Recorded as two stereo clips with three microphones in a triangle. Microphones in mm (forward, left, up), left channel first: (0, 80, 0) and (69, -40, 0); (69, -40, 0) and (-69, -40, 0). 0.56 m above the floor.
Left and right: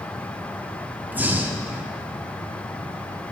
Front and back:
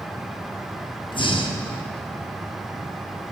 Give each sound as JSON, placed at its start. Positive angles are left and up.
{"t": 1.1, "sound": "breathing", "azimuth_deg": 10, "distance_m": 0.7}